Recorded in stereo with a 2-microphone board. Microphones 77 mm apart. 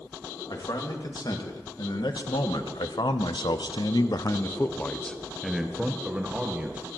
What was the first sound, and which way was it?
A man speaking, 65° left (ahead or behind).